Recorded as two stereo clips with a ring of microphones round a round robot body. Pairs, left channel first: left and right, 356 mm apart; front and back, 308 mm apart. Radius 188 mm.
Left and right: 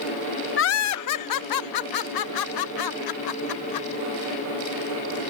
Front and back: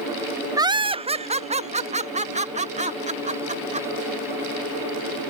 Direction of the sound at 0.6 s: 110° left.